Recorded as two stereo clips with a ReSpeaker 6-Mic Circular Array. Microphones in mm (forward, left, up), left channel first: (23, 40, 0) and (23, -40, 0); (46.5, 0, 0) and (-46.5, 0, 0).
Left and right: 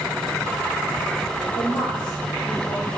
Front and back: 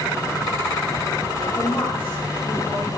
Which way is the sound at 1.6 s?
70° left.